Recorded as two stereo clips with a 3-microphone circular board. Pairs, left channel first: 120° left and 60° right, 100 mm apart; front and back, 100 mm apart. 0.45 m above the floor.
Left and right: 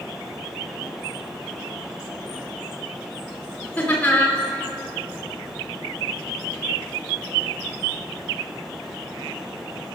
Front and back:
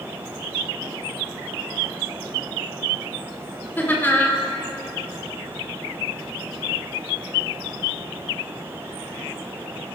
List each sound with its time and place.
3.8 s laughter: 55° left, 1.3 m